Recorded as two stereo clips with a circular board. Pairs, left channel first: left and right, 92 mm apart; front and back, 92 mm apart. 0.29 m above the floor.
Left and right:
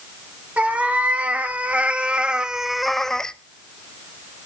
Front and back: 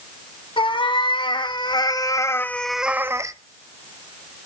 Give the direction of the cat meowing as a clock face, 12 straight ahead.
1 o'clock.